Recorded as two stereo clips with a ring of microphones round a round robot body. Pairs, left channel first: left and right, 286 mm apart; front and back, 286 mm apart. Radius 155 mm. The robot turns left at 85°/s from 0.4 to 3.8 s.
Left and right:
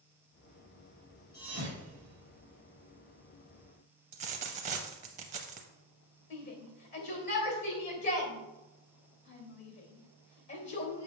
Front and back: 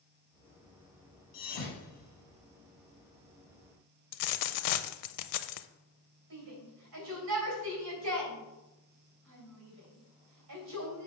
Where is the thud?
10° right, 2.5 m; by 2.4 s 100° right, 2.5 m.